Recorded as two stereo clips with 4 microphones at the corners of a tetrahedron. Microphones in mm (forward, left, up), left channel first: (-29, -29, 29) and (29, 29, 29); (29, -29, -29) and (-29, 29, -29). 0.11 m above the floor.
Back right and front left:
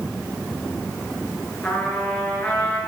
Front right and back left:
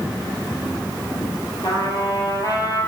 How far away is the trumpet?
About 2 m.